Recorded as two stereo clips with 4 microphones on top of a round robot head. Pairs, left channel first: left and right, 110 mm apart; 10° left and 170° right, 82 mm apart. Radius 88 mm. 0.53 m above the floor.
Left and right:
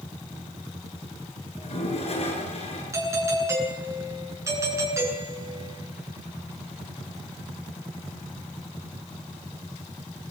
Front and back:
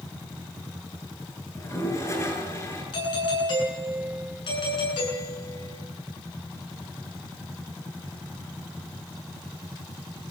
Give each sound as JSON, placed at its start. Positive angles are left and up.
{"t": 1.6, "sound": "a toilet flushing", "azimuth_deg": 60, "distance_m": 7.0}
{"t": 2.9, "sound": "a doorbell", "azimuth_deg": -25, "distance_m": 9.0}